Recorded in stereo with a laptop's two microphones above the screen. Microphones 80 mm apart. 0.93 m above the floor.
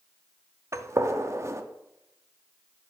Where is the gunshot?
40° right (ahead or behind), 0.5 m.